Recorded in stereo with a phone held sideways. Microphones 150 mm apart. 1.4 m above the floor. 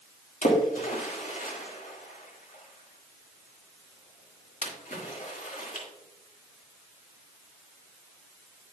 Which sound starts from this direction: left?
A splash, at 0.4 s.